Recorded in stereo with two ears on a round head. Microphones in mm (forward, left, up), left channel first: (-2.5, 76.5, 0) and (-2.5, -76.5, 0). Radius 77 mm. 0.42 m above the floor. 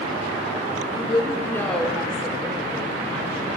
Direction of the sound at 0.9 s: 35° left (ahead or behind).